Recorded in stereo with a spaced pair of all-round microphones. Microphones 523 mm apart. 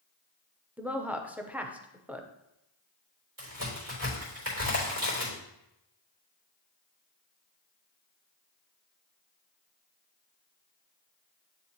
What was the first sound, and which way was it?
A woman speaking, 5° right (ahead or behind).